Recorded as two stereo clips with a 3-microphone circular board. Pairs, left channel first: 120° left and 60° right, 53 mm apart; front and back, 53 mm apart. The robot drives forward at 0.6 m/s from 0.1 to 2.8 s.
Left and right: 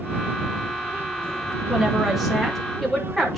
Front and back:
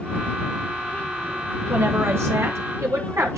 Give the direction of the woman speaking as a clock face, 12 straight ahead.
4 o'clock.